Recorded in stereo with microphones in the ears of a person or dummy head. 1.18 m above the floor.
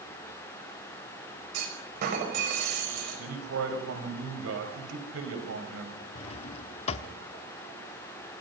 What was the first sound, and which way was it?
A clunk, 50° right (ahead or behind).